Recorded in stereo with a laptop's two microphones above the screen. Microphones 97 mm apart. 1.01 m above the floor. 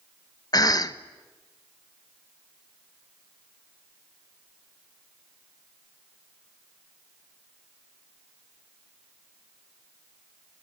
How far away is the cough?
About 1.1 m.